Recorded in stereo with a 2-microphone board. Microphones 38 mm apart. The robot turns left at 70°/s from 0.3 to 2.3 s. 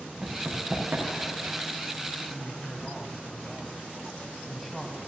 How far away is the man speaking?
About 1.1 m.